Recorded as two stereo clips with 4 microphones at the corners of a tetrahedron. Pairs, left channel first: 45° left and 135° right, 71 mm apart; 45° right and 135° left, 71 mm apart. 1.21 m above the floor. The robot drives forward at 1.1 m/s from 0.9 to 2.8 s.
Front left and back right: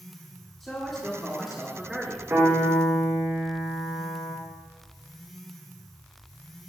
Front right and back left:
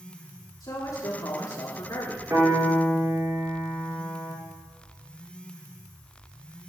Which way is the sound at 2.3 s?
170° left.